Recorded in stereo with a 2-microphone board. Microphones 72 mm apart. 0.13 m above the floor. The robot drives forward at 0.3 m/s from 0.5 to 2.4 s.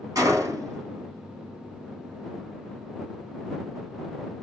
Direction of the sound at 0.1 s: 55° right (ahead or behind).